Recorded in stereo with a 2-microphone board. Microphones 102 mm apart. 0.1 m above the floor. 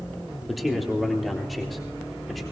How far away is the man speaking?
About 3.5 m.